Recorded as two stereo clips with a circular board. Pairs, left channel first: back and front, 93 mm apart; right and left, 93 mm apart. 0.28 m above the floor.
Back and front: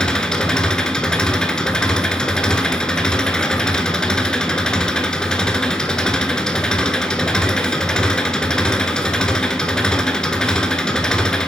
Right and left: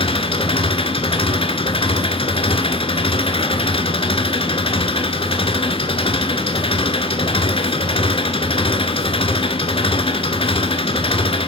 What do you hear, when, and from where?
0.0 s an engine running: 100° right, 1.1 m